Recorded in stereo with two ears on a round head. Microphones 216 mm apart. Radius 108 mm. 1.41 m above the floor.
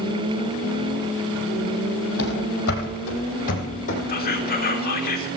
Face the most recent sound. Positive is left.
turn(degrees=40)  # may be behind; listen again after turning